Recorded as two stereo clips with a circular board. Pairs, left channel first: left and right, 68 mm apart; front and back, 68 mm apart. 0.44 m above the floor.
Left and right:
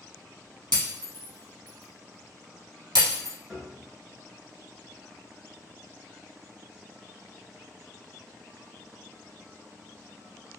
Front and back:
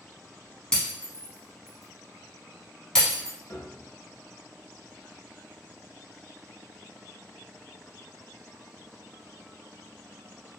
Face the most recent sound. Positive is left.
turn(degrees=-15)